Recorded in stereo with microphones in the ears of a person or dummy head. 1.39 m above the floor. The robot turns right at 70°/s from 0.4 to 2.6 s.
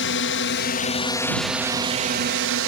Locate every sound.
0.0 s a drone: 100° left; by 2.7 s 105° right